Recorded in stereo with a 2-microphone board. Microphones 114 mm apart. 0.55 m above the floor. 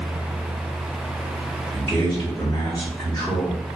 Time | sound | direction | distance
1.7 | a man speaking | 10° left (ahead or behind) | 1.2 m